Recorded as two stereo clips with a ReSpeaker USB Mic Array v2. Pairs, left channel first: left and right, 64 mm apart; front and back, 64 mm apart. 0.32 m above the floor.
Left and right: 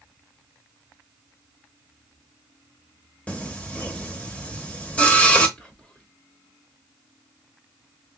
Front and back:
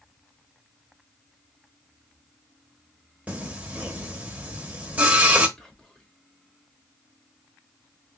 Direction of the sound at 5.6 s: 55° left.